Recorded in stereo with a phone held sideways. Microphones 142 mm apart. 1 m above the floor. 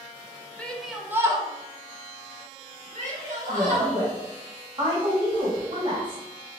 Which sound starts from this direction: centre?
A shout, at 0.6 s.